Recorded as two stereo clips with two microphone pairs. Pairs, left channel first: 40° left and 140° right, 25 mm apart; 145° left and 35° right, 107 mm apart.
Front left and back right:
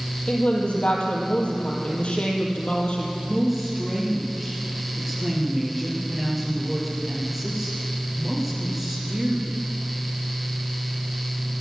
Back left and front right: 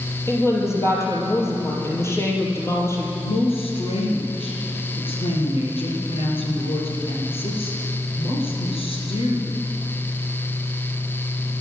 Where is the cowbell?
I don't hear a cowbell.